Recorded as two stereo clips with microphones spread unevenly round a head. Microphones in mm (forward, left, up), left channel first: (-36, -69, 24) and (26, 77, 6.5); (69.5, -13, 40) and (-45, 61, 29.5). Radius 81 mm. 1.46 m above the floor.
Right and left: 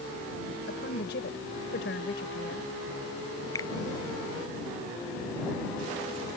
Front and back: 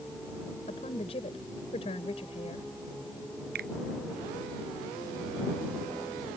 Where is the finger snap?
175° left.